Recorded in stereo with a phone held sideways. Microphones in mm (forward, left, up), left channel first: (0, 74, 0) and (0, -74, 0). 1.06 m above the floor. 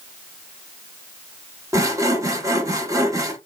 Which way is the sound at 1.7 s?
20° right (ahead or behind).